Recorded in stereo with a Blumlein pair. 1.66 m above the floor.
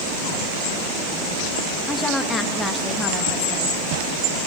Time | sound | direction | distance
1.9 | a woman speaking | 10° left | 2 m